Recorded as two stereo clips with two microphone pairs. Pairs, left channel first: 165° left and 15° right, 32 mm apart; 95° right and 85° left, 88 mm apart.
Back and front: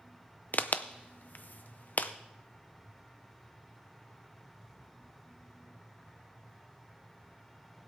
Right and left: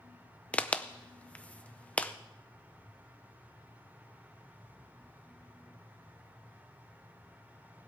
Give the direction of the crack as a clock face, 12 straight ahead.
6 o'clock.